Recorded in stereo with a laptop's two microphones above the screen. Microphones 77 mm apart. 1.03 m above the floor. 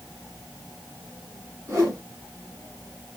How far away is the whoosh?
About 2.5 m.